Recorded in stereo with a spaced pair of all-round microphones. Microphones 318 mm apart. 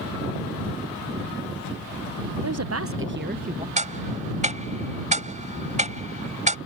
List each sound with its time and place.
2.4 s a woman speaking: 55° right (ahead or behind); by 3.7 s 20° right (ahead or behind)
3.8 s ticking: 20° right (ahead or behind)